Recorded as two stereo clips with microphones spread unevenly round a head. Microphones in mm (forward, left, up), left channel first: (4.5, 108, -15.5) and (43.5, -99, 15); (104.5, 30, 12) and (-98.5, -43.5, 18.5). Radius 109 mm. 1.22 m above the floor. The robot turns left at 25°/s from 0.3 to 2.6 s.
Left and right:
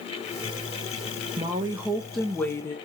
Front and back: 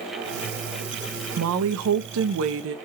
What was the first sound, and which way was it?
A woman speaking, 155° right.